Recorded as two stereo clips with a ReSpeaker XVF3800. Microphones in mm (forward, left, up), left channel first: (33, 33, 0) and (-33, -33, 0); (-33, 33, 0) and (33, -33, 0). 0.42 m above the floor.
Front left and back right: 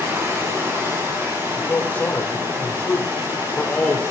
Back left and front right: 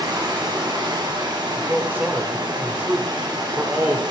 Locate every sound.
0.0 s running water: 75° right, 2 m
1.6 s a man speaking: 5° right, 1.1 m